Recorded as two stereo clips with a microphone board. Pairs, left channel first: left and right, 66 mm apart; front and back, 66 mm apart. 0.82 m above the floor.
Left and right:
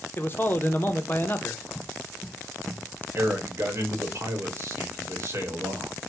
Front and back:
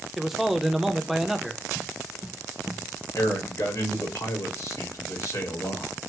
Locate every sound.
0.2 s a man speaking: 100° left, 0.6 m
1.8 s footsteps: 90° left, 1.0 m; by 3.0 s 35° right, 0.9 m
3.1 s a man speaking: 40° right, 1.0 m